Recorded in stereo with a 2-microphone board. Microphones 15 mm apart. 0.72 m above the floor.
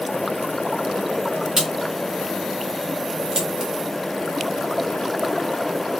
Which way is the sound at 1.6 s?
55° right (ahead or behind).